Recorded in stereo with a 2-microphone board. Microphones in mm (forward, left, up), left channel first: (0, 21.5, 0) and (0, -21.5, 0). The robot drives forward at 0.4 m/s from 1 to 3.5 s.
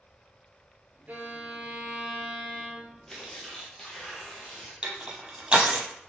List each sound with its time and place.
1.1 s a violin: 45° right (ahead or behind), 0.7 m; by 3.0 s 30° right (ahead or behind), 1.0 m
3.1 s tearing paper: 10° left (ahead or behind), 1.2 m
4.8 s crushing: 25° right (ahead or behind), 0.8 m